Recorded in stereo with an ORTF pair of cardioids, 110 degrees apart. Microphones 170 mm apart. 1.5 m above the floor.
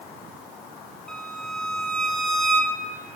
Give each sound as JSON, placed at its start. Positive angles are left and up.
{"t": 1.1, "sound": "a violin", "azimuth_deg": 0, "distance_m": 1.0}